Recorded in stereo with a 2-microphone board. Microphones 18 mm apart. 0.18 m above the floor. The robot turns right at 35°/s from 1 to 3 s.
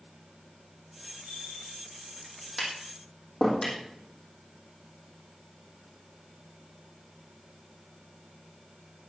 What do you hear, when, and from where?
1.2 s a bell: 85° right, 6.5 m; by 1.8 s 75° right (ahead or behind), 6.5 m
2.6 s tapping: 10° left (ahead or behind), 5.5 m; by 3.8 s 20° left (ahead or behind), 5.5 m